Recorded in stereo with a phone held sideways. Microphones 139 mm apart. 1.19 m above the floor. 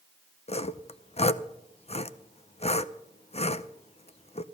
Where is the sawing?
50° left (ahead or behind), 0.6 m.